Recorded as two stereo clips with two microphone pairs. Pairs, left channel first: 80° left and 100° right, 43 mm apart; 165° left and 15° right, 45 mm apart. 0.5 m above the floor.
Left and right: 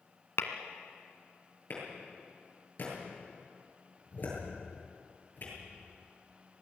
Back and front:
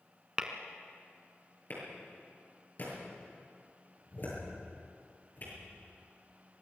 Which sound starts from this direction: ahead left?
Tapping, at 0.4 s.